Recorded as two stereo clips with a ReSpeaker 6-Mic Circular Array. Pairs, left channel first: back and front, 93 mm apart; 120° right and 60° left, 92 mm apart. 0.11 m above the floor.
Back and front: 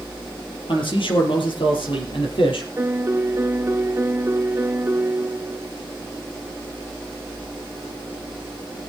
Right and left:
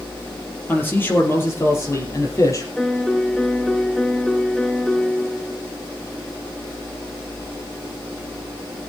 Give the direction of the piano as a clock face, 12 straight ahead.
1 o'clock.